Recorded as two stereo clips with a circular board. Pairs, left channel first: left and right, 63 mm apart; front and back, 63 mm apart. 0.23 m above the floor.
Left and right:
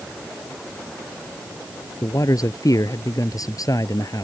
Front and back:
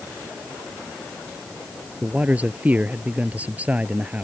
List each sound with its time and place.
2.0 s a man speaking: 115° left